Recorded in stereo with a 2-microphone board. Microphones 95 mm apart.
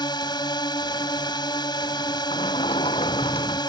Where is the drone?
50° left (ahead or behind).